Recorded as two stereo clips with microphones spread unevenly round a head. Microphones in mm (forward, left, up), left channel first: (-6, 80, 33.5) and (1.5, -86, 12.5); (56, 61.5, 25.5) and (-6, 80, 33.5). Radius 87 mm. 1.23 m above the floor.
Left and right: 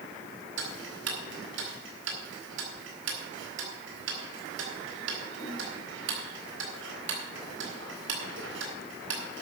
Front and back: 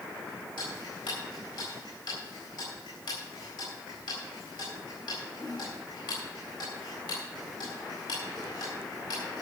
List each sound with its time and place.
0.6 s ticking: 70° right, 3.5 m